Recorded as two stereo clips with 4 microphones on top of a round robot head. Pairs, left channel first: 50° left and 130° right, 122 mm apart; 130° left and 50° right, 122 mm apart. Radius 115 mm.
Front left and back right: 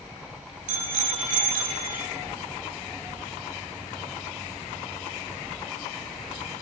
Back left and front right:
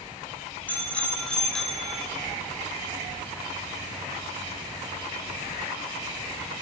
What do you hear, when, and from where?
0.7 s a bicycle bell: 150° right, 5 m; by 2.1 s 135° right, 3.5 m